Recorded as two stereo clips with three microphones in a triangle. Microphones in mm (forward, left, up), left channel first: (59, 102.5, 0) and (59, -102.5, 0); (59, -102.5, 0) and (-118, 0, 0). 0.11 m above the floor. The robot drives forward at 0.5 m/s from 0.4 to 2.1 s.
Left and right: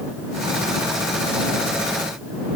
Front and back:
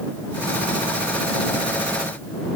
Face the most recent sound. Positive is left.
No sound to turn to.